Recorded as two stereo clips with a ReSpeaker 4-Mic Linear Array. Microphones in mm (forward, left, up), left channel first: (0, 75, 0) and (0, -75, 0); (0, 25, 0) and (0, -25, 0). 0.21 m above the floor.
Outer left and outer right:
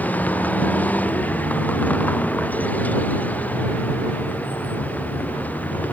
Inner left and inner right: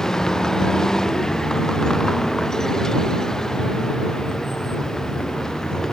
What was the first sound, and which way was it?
A vehicle, 10° left (ahead or behind).